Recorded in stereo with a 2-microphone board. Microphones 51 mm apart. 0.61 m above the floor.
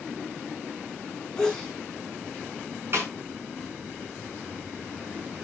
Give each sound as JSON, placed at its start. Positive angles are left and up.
{"t": 1.4, "sound": "a sneeze", "side_deg": 15, "distance_m": 4.5}
{"t": 2.9, "sound": "a snare drum", "side_deg": -50, "distance_m": 6.5}